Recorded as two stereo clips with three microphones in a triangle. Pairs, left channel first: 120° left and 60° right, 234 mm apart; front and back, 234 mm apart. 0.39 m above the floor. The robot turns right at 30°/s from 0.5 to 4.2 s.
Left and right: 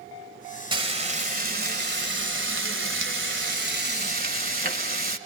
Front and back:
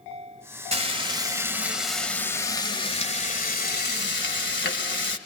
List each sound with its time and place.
0.7 s frying: 125° right, 1.9 m; by 5.2 s 20° right, 1.9 m